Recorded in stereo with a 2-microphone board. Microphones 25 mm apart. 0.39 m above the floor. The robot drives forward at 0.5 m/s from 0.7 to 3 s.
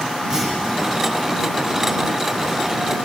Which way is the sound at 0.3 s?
25° right (ahead or behind).